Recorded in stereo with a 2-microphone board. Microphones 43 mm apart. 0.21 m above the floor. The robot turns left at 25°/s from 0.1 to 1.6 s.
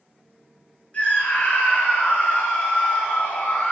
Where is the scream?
30° left (ahead or behind), 1.4 m; by 3.7 s 35° left (ahead or behind), 1.4 m.